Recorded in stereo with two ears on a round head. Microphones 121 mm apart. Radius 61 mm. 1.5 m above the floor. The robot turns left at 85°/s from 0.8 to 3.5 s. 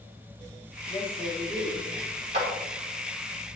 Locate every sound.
0.9 s a woman speaking: 35° left, 4 m; by 1.9 s 50° right, 4 m
2.3 s a clap: 55° right (ahead or behind), 3.5 m; by 2.5 s 45° right (ahead or behind), 3.5 m